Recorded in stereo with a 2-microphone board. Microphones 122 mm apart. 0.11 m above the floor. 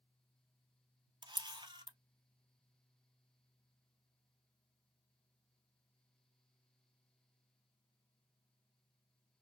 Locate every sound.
1.2 s a camera shutter: 40° right (ahead or behind), 0.6 m